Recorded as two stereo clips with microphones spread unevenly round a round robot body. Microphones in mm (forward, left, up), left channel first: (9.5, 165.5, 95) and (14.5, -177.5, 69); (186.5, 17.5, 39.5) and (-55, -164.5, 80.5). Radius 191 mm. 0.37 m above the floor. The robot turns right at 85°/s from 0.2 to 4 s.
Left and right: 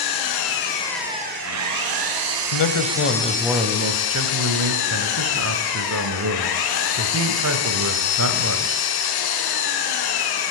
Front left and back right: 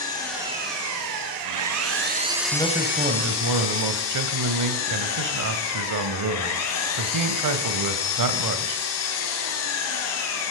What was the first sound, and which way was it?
An engine running, 115° left.